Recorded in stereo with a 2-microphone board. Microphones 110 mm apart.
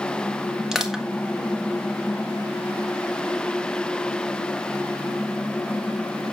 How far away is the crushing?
About 1.9 m.